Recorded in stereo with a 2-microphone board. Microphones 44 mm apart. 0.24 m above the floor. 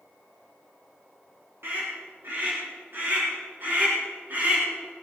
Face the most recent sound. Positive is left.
turn(degrees=-40)  # may be behind; listen again after turning